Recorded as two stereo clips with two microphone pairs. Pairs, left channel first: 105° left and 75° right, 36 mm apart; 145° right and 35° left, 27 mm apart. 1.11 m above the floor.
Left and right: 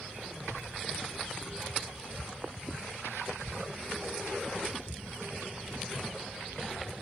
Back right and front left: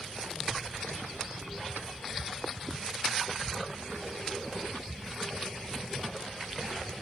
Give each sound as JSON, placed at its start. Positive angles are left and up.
{"t": 0.4, "sound": "a child speaking", "azimuth_deg": -90, "distance_m": 1.7}